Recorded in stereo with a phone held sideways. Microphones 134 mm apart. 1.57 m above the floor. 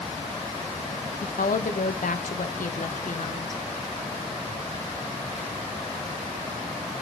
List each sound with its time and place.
1.2 s a woman speaking: 80° left, 0.8 m